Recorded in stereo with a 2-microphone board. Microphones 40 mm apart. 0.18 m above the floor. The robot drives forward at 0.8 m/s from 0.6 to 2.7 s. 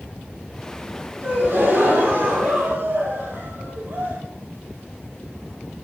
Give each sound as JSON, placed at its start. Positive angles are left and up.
{"t": 1.2, "sound": "a gasp", "side_deg": -75, "distance_m": 6.0}